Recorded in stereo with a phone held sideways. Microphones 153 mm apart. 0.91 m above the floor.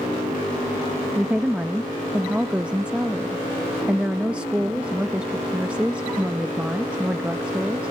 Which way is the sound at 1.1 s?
5° right (ahead or behind).